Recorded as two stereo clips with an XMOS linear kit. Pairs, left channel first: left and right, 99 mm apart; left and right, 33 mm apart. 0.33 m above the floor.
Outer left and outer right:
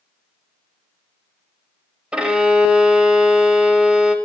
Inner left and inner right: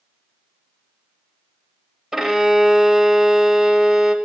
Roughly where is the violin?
Centre.